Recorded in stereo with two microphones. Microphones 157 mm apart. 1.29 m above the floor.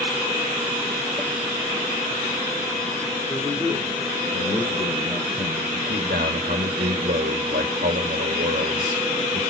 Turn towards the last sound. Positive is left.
turn(degrees=-85)